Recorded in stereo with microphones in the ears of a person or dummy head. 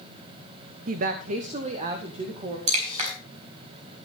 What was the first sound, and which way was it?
A woman speaking, 55° right (ahead or behind).